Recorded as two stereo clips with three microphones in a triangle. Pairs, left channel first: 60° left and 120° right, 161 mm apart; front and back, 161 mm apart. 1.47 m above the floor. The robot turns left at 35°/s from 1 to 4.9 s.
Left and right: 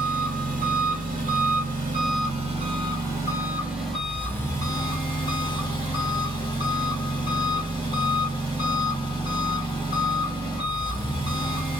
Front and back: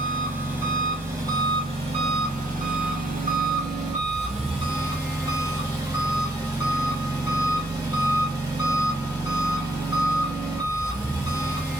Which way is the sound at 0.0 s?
110° right.